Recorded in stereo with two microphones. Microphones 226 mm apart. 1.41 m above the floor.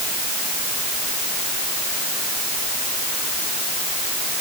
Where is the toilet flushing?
No toilet flushing in this recording.